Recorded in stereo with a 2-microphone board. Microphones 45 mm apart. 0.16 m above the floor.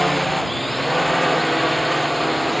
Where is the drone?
5° left (ahead or behind); by 2.6 s centre (ahead or behind).